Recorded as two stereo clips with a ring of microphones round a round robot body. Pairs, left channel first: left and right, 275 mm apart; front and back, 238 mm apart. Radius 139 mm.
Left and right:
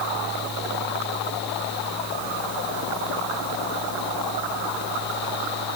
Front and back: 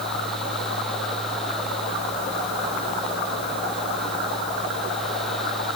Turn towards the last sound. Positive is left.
No sound to turn to.